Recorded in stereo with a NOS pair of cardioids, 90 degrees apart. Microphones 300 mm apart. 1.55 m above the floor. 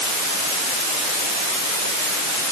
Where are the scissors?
I don't hear scissors.